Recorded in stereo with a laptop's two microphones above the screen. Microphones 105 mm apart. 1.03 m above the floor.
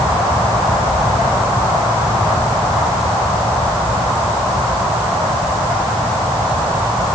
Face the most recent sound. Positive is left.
No sound to turn to.